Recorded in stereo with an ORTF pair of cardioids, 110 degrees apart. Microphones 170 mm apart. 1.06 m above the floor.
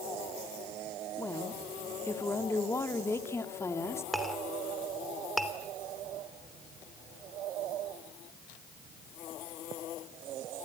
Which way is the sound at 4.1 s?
Straight ahead.